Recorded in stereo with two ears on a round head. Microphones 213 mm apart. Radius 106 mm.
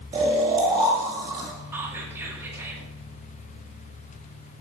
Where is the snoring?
20° right (ahead or behind), 1.5 m.